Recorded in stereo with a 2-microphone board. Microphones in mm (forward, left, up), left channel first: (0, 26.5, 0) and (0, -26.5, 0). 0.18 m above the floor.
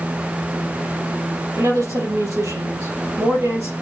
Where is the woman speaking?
75° right (ahead or behind), 4 m.